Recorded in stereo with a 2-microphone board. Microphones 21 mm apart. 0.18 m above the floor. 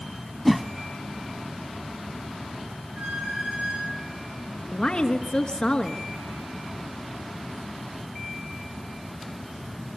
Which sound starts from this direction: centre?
A whoosh, at 0.5 s.